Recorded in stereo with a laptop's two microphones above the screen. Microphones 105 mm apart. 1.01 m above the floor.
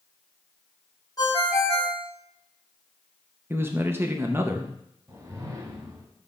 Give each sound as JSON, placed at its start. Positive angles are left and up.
{"t": 1.2, "sound": "a ringtone", "side_deg": 35, "distance_m": 1.0}
{"t": 3.5, "sound": "a man speaking", "side_deg": -20, "distance_m": 0.6}
{"t": 5.1, "sound": "a whoosh", "side_deg": -30, "distance_m": 1.1}